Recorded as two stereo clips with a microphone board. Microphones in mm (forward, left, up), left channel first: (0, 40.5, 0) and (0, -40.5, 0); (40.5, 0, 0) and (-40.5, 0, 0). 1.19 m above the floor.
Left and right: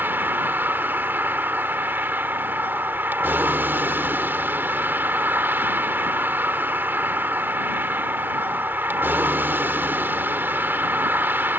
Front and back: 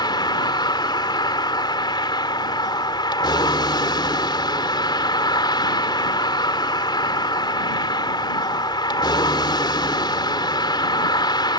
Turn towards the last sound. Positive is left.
turn(degrees=-25)